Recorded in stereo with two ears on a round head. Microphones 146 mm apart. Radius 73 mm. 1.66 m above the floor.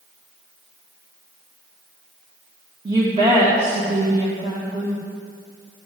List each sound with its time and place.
2.9 s a woman speaking: 25° right (ahead or behind), 1.8 m